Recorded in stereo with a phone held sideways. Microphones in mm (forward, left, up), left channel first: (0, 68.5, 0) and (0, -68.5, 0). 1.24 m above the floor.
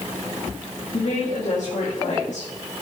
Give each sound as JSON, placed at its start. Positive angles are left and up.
{"t": 0.9, "sound": "a woman speaking", "side_deg": 70, "distance_m": 2.5}